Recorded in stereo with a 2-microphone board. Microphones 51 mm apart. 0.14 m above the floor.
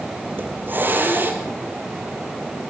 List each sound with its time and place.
0.3 s a hiss: 40° right (ahead or behind), 4 m